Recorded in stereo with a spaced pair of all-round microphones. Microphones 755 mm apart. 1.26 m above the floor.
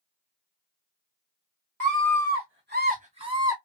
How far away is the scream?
About 2.5 m.